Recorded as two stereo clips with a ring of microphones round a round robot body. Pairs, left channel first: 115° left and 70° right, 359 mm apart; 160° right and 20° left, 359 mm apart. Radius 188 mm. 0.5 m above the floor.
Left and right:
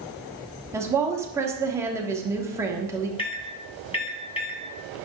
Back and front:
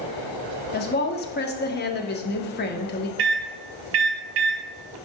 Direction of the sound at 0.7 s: 140° right.